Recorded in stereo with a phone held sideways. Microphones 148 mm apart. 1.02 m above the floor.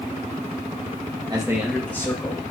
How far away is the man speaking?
About 1.3 m.